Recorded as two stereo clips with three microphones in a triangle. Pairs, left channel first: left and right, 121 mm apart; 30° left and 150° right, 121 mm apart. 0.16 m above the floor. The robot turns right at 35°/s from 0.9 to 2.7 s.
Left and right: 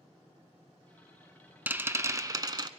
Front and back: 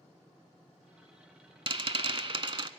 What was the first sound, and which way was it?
A rattle, 160° right.